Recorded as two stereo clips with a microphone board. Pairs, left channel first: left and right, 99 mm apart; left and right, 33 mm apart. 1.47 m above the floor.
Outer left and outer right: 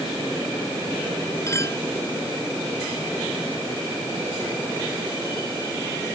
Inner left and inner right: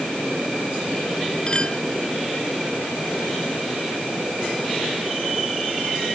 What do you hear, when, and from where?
1.5 s a clink: 30° left (ahead or behind)